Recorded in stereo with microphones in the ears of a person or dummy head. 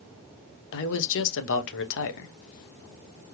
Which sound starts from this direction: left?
A man speaking, at 0.7 s.